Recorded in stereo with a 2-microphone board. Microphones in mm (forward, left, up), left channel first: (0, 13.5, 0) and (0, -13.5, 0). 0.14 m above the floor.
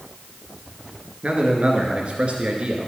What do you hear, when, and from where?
1.2 s a man speaking: 45° right (ahead or behind), 1.8 m